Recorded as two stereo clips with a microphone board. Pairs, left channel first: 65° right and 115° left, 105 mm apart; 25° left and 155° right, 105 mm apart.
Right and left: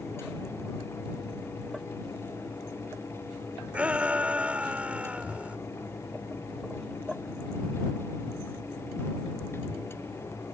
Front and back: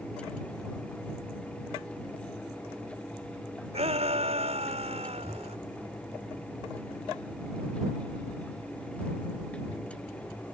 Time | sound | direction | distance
3.7 | a shout | 170° right | ?